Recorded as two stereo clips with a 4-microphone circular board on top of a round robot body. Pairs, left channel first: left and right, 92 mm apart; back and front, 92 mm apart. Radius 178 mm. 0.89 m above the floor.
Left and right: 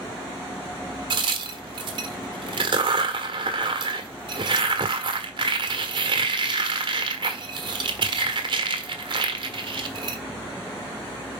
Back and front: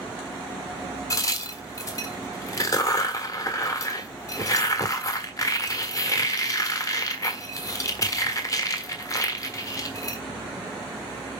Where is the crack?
125° right, 1.3 m.